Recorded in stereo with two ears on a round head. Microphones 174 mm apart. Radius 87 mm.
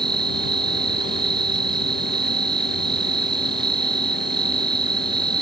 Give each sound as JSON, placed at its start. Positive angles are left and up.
{"t": 0.0, "sound": "an insect", "side_deg": -25}